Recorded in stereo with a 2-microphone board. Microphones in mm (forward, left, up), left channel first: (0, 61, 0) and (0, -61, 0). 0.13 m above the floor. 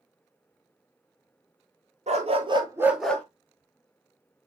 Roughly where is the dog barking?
Right.